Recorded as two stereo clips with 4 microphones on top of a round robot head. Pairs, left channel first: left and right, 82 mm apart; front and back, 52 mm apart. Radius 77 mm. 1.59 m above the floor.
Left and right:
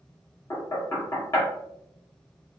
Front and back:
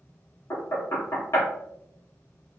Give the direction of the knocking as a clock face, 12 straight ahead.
11 o'clock.